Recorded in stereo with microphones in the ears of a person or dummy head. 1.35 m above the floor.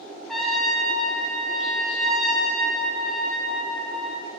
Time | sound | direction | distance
0.3 | a trumpet | centre (ahead or behind) | 1.3 m